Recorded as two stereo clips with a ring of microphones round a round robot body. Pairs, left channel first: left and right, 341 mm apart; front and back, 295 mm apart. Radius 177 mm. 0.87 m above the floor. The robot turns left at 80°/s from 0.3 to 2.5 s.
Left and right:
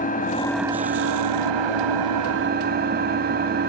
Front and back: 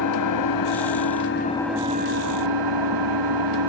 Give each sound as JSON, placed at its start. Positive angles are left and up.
{"t": 0.0, "sound": "an engine running", "azimuth_deg": 20, "distance_m": 2.5}